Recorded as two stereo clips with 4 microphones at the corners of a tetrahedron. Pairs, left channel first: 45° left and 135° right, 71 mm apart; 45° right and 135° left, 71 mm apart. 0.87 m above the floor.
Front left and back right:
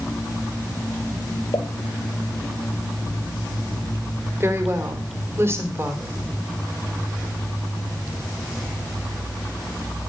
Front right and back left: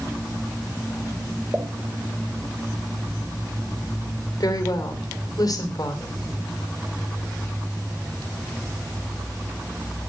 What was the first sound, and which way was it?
A pop, 70° left.